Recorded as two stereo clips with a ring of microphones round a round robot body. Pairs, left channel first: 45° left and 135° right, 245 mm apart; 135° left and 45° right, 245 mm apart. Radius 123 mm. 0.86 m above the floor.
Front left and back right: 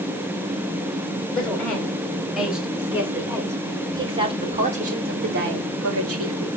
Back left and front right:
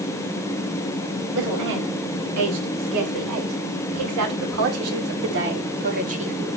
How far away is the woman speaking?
About 5 m.